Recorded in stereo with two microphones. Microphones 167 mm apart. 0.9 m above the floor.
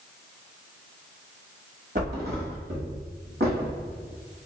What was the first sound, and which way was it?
A thud, 65° right (ahead or behind).